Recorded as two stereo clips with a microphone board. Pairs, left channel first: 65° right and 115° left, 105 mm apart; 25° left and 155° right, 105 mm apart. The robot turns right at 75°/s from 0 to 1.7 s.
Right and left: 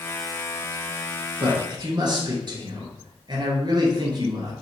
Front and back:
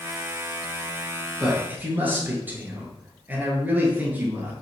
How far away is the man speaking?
About 1.6 m.